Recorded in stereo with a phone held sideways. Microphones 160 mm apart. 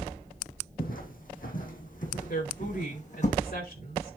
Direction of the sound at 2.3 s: 70° left (ahead or behind).